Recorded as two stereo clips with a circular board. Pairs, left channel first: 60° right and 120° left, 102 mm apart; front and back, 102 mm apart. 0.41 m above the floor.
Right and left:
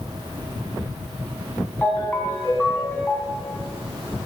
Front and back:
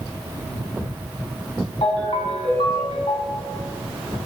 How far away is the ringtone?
About 1.9 m.